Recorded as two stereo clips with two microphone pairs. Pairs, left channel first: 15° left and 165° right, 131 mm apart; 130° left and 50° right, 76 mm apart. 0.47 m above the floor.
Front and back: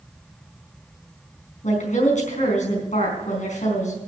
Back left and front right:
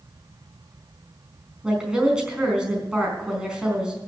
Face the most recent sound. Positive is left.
turn(degrees=30)